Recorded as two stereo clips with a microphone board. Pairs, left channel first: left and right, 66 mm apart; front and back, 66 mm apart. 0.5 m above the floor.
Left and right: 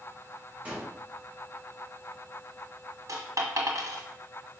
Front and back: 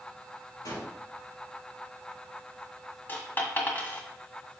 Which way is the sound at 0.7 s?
20° right.